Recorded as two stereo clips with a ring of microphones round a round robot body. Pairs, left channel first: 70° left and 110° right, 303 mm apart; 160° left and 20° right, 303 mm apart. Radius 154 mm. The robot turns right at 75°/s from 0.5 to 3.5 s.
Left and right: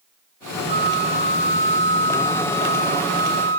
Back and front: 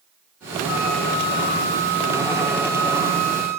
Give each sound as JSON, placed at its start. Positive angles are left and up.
{"t": 0.7, "sound": "a flute", "azimuth_deg": 75, "distance_m": 1.1}